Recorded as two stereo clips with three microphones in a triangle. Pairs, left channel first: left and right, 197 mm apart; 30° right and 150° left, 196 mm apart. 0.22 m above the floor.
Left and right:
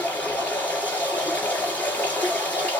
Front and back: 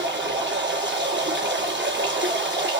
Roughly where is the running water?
Behind.